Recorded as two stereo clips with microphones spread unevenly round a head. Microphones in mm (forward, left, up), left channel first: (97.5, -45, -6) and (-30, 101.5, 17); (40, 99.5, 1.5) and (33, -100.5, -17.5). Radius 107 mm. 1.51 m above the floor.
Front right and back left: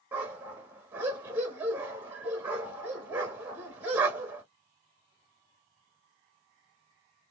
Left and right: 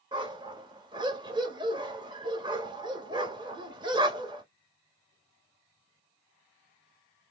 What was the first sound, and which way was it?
A dog barking, 160° right.